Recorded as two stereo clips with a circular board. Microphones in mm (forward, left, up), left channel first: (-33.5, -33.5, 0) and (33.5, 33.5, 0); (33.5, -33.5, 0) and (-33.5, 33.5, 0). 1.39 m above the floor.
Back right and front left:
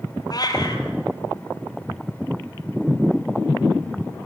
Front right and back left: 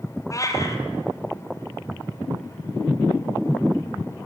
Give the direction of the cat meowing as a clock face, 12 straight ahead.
3 o'clock.